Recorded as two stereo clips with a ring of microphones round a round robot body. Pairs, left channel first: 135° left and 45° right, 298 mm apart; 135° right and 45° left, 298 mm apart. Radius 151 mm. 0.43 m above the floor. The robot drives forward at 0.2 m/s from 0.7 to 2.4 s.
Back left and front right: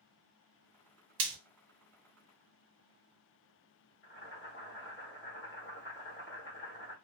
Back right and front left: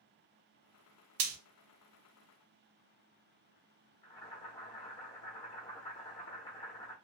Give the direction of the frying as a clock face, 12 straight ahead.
12 o'clock.